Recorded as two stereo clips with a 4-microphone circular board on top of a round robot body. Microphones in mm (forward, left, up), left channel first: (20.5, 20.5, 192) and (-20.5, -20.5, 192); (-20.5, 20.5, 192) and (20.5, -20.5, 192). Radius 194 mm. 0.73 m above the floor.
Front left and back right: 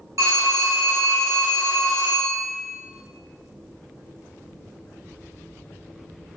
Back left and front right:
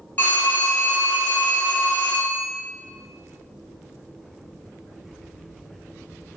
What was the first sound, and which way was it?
A phone ringing, 165° right.